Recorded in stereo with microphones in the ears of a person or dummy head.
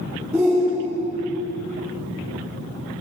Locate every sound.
0.3 s a shout: 10° right (ahead or behind), 3 m